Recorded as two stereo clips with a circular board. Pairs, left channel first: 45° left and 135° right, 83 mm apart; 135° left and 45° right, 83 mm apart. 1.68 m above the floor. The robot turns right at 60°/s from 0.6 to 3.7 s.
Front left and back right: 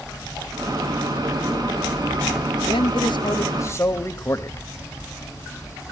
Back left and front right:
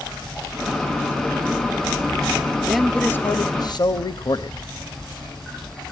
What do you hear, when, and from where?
2.6 s a man speaking: 40° left, 1.0 m; by 4.7 s 105° left, 1.0 m